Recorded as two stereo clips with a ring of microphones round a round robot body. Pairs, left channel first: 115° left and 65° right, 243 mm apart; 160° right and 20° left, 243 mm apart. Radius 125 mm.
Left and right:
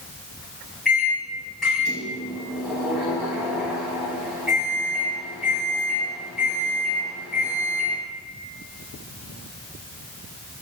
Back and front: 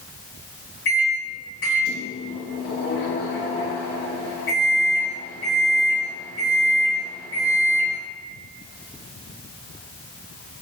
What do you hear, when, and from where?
0.8 s a microwave: 160° right, 1.2 m